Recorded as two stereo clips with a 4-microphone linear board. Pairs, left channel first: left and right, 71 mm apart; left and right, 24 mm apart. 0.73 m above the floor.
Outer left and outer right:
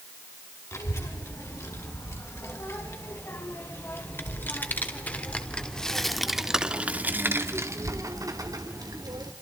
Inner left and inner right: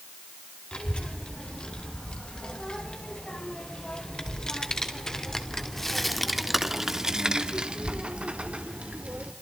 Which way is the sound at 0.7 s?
45° left (ahead or behind).